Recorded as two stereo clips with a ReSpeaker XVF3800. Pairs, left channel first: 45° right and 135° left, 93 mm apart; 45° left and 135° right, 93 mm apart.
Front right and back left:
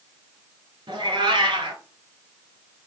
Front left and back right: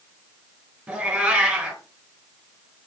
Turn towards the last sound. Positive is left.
turn(degrees=150)